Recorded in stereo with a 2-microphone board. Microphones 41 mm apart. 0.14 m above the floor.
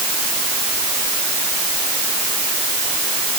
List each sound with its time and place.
Only background noise.